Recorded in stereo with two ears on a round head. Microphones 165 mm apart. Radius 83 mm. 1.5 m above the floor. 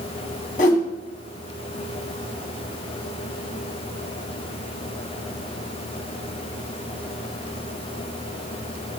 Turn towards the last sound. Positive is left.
turn(degrees=45)  # may be behind; listen again after turning